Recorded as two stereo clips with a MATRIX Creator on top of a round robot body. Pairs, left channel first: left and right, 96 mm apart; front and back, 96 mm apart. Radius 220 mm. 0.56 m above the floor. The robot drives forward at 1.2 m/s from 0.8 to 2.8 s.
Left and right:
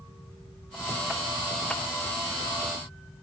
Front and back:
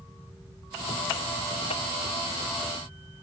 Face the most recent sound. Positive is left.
No sound to turn to.